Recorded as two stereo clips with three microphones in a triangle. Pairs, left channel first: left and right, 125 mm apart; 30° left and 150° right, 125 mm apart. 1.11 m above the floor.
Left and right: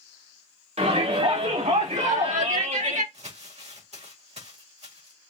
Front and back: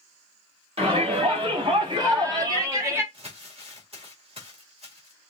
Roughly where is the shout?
Behind right.